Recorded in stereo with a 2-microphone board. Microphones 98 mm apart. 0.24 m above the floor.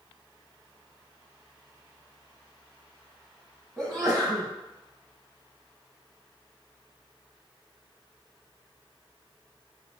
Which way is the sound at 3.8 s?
Centre (ahead or behind).